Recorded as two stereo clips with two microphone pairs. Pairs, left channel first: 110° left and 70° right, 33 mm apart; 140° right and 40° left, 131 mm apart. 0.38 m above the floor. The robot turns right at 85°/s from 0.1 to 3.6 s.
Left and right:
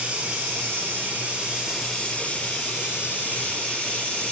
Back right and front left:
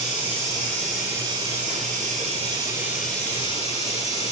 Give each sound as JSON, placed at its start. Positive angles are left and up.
{"t": 0.0, "sound": "running water", "azimuth_deg": -125, "distance_m": 7.0}